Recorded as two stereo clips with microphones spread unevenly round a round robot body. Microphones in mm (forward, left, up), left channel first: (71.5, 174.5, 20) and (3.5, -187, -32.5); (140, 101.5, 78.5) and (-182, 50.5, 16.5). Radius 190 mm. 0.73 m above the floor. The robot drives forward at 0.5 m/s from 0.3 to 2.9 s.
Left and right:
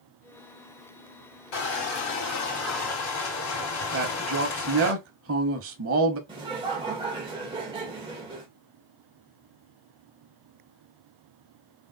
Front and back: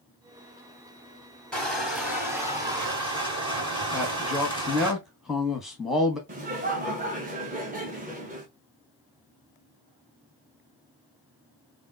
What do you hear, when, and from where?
1.5 s crushing: 95° left, 2.5 m; by 4.9 s 115° left, 2.5 m
3.9 s a man speaking: 95° right, 0.8 m
6.3 s laughter: 155° right, 0.7 m